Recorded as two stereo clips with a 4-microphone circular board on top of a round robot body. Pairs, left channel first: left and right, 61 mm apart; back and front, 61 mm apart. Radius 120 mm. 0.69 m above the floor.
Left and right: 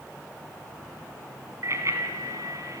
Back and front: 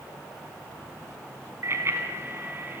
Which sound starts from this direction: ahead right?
A bicycle bell, at 1.6 s.